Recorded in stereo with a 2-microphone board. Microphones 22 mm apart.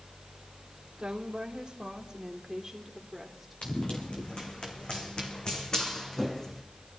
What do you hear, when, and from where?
1.0 s a woman speaking: 50° right (ahead or behind), 2 m; by 3.6 s 10° right (ahead or behind), 2.5 m
3.6 s running footsteps: 65° left (ahead or behind), 3 m; by 6.6 s 20° left (ahead or behind), 2.5 m